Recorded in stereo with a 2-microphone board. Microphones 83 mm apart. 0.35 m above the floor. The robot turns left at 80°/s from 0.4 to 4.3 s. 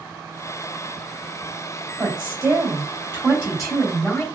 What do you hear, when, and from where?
2.0 s a woman speaking: 45° right, 2 m; by 4.2 s 130° left, 2 m